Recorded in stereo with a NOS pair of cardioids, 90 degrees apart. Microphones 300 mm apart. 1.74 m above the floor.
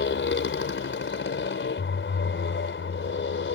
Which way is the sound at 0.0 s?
40° left.